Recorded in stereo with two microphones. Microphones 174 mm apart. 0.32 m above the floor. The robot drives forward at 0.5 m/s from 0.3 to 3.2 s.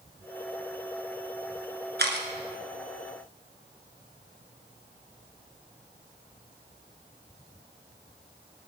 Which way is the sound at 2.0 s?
70° right (ahead or behind).